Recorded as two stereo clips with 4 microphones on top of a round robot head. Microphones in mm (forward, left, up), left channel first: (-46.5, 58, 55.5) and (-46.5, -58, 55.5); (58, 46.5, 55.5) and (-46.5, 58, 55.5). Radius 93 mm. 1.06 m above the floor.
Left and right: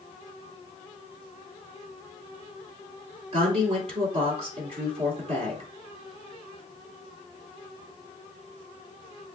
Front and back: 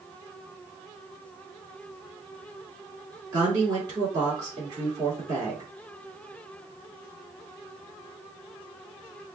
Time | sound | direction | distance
3.3 | a woman speaking | 125° right | 3 m